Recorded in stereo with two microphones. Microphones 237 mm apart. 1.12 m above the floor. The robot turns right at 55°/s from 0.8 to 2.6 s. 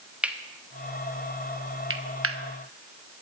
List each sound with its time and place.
0.2 s cutlery clinking: 5° right (ahead or behind), 0.9 m; by 2.4 s 70° right (ahead or behind), 0.9 m